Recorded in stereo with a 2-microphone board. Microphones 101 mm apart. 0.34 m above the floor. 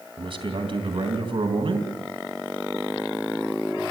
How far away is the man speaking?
About 3 m.